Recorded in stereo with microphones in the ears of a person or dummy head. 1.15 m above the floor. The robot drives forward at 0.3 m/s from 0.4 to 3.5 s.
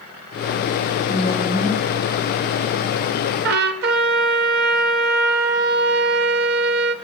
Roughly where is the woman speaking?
Centre.